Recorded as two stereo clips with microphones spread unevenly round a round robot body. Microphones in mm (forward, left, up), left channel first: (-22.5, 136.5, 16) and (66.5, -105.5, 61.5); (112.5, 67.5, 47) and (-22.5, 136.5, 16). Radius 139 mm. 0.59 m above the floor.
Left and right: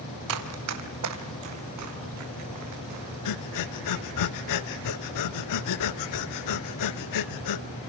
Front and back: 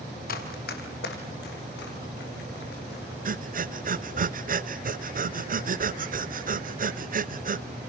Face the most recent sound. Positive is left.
turn(degrees=120)